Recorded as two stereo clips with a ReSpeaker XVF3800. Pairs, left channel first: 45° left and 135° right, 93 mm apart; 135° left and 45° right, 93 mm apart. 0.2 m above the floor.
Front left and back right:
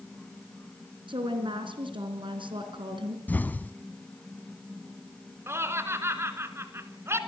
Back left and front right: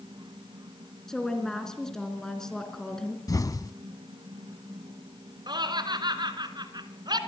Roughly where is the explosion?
Left.